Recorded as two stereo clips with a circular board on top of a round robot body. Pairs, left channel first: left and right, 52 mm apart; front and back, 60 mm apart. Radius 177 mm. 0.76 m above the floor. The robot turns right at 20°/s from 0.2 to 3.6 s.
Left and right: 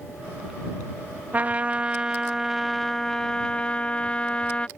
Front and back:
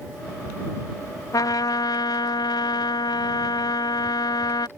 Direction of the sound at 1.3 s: 30° right.